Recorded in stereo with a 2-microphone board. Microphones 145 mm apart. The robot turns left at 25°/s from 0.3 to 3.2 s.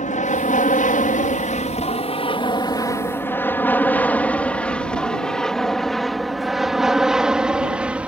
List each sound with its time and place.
0.0 s an aircraft: 65° left (ahead or behind); by 8.1 s 10° right (ahead or behind)